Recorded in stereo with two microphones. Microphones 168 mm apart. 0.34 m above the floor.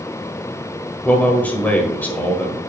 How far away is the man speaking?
About 1.4 m.